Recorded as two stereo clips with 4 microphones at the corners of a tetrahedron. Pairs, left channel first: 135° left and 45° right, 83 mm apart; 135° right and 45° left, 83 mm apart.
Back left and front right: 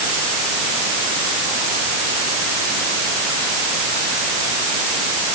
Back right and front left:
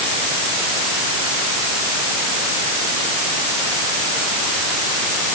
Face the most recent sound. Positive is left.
No sound to turn to.